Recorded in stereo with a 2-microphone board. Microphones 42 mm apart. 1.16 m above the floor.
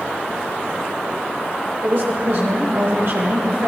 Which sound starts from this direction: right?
A woman speaking, at 1.8 s.